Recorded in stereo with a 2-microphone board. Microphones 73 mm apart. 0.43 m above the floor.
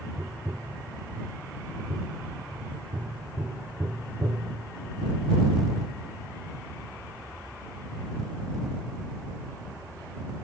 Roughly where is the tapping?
Right.